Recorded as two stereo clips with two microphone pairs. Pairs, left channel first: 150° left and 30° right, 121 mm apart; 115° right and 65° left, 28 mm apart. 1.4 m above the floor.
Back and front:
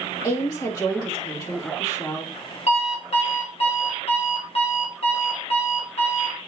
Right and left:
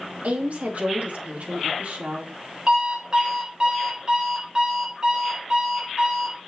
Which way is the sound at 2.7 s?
125° left.